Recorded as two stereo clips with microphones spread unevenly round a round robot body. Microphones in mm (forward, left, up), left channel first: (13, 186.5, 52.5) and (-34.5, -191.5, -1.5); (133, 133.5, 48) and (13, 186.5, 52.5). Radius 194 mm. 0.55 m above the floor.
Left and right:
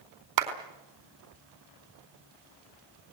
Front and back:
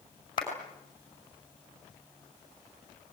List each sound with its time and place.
0.4 s a clap: 95° right, 4.5 m